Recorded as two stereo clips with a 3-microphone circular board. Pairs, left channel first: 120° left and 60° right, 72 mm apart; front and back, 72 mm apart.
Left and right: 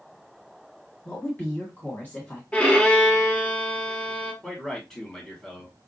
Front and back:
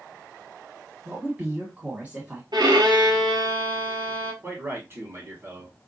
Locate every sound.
1.1 s a woman speaking: 140° left, 1.5 m
2.5 s a violin: 170° right, 1.2 m
4.4 s a man speaking: 165° right, 1.6 m